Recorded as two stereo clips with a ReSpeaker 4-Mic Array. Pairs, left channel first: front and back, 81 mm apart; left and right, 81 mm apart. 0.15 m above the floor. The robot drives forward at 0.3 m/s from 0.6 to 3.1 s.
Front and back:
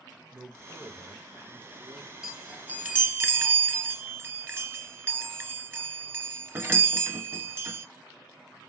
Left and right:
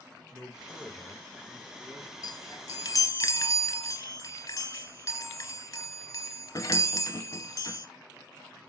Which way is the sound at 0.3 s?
135° right.